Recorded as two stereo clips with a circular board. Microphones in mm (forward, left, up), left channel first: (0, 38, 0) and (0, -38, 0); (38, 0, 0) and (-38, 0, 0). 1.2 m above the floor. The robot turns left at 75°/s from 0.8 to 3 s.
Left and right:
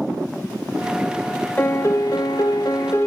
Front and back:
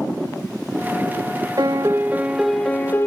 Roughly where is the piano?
Behind left.